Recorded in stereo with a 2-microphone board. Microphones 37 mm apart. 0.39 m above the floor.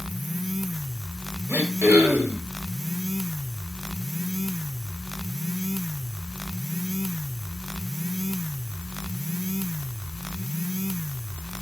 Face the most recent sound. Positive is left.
turn(degrees=-60)  # may be behind; listen again after turning